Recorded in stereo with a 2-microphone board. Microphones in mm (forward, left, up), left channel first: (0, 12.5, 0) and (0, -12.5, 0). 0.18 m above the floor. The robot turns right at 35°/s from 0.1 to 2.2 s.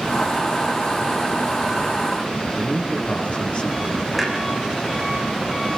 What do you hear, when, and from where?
2.6 s a man speaking: 50° left (ahead or behind), 4.5 m
4.1 s a clunk: centre (ahead or behind), 5 m